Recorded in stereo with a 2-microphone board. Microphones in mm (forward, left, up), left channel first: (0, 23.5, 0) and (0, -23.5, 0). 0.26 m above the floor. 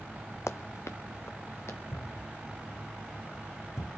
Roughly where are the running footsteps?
Left.